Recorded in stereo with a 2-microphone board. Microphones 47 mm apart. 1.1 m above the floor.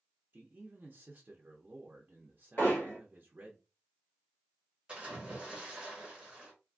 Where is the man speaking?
45° right (ahead or behind), 0.5 m.